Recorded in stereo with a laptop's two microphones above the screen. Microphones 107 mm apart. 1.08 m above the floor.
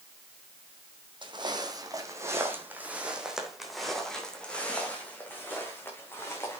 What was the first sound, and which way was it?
Footsteps, 45° right (ahead or behind).